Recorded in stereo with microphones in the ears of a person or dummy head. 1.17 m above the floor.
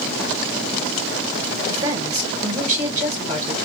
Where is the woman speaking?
25° right (ahead or behind), 0.9 m.